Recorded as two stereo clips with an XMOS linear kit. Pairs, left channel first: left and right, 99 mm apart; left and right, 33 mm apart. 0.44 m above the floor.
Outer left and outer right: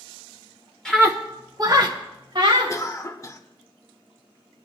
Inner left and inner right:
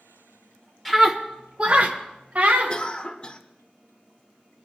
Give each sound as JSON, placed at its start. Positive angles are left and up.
{"t": 0.8, "sound": "a scream", "side_deg": 5, "distance_m": 1.2}
{"t": 2.7, "sound": "a cough", "side_deg": 30, "distance_m": 0.9}